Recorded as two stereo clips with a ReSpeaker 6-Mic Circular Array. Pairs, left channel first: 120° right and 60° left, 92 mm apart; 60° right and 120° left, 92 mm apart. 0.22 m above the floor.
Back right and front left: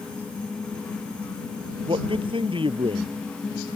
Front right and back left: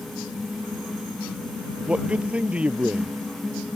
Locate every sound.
1.9 s a man speaking: 45° left